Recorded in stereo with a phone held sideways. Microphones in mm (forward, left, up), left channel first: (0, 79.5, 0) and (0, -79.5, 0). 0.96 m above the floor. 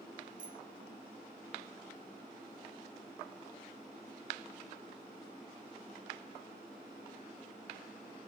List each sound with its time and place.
0.4 s a bicycle bell: 60° right (ahead or behind)